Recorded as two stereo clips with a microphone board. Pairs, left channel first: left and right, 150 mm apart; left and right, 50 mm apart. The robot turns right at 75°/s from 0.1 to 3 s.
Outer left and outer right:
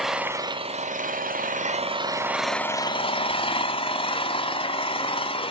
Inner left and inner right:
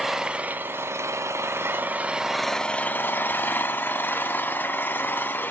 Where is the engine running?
175° right, 0.8 m; by 5.5 s 40° left, 0.8 m.